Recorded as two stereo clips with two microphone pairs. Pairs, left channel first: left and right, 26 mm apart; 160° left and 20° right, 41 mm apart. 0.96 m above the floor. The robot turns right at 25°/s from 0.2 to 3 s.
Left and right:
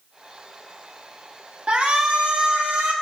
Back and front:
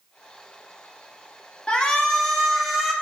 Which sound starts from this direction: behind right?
A shout, at 1.7 s.